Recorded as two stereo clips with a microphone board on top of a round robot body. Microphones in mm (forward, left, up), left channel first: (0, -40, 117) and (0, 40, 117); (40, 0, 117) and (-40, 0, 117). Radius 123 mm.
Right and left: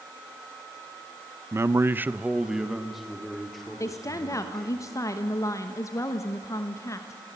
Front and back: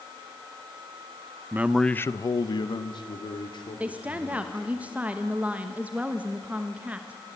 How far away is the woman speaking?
About 1.3 m.